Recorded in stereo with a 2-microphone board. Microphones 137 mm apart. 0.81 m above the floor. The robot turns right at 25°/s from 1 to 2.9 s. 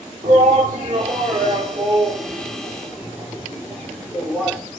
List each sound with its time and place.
0.2 s a shout: 50° right (ahead or behind), 2.5 m; by 4.6 s 10° right (ahead or behind), 2.5 m